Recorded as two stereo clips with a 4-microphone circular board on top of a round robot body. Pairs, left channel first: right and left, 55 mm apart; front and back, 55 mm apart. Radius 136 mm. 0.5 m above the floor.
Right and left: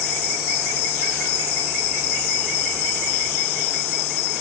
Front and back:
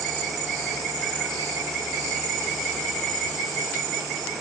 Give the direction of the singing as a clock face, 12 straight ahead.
No singing in this recording.